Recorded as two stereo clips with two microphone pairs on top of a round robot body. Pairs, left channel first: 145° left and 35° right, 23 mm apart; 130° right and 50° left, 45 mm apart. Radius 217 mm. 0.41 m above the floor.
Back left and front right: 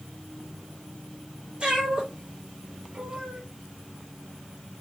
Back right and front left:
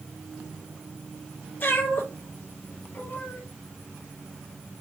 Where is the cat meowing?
85° right, 4 m.